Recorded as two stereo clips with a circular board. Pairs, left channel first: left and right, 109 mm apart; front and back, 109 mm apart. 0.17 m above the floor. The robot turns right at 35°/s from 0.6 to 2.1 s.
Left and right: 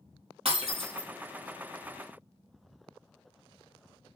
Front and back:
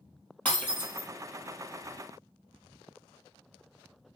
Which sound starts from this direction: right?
Breaking glass, at 0.5 s.